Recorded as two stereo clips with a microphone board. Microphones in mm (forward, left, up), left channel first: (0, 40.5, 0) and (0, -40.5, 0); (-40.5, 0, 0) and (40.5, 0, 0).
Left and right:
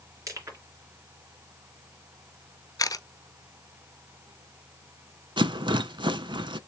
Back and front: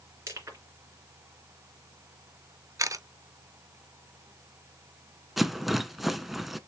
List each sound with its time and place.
0.3 s crushing: 50° right, 2.5 m
2.8 s a camera shutter: 50° left, 0.7 m
5.4 s a rattle: 85° right, 0.6 m